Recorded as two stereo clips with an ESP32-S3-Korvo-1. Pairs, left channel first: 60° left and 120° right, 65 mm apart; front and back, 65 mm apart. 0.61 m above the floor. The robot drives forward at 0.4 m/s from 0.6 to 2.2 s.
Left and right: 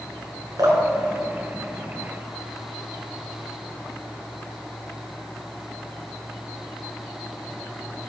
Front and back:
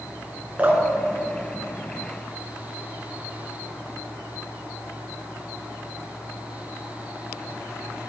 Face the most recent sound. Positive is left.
turn(degrees=-125)